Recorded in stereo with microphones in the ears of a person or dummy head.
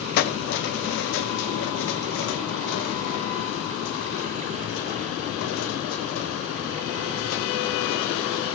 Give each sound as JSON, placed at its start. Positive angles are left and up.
{"t": 0.2, "sound": "keys jangling", "side_deg": 45, "distance_m": 1.0}